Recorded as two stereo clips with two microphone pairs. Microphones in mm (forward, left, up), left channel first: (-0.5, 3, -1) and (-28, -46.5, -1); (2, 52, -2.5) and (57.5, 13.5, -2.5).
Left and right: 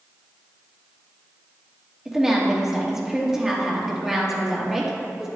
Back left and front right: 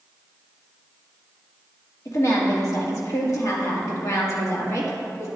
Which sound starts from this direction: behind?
A woman speaking, at 2.0 s.